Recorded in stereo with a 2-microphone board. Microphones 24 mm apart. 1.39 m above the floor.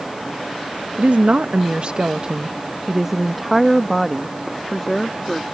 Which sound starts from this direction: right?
A woman speaking, at 0.9 s.